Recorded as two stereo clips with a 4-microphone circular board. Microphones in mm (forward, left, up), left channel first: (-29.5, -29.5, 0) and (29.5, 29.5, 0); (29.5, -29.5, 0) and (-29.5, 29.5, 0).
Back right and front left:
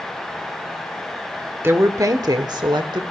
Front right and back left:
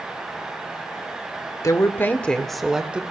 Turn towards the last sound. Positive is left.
turn(degrees=60)